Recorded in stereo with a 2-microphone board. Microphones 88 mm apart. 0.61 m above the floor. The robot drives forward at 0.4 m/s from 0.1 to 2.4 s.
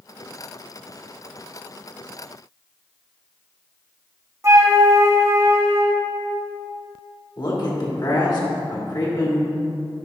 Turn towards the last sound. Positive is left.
turn(degrees=50)  # may be behind; listen again after turning